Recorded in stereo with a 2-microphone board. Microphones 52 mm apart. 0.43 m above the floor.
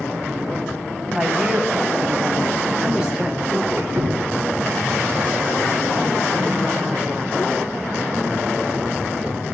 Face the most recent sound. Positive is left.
turn(degrees=-45)  # may be behind; listen again after turning